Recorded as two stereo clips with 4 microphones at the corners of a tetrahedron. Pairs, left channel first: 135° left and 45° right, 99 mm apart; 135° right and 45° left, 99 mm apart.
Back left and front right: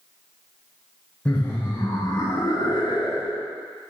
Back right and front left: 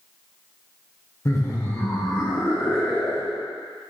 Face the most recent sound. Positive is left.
turn(degrees=160)